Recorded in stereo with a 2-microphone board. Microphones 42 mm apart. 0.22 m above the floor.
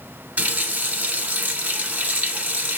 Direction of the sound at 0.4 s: 35° right (ahead or behind).